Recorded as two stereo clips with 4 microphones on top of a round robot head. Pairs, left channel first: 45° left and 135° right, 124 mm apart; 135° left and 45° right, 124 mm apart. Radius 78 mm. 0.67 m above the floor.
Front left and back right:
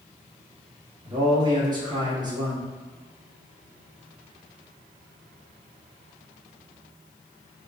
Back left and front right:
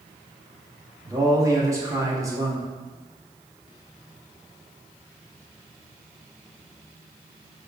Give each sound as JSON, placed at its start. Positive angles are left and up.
{"t": 1.1, "sound": "a man speaking", "azimuth_deg": -95, "distance_m": 1.6}